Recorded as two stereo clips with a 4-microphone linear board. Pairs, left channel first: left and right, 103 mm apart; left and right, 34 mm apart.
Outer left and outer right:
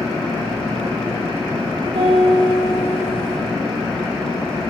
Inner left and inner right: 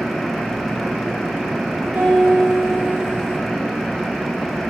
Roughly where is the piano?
Right.